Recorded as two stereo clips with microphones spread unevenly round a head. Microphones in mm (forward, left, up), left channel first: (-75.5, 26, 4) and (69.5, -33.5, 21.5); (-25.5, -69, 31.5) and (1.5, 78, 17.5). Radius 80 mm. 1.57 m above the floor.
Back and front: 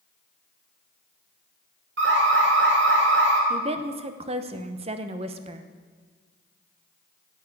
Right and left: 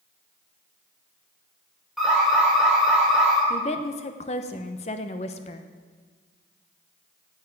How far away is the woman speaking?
About 0.8 m.